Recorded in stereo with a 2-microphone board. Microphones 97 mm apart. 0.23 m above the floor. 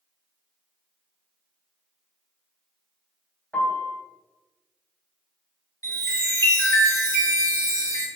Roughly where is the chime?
Left.